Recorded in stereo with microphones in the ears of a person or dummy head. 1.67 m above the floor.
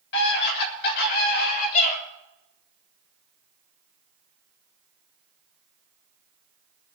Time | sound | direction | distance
0.1 | a scream | 65° left (ahead or behind) | 8 m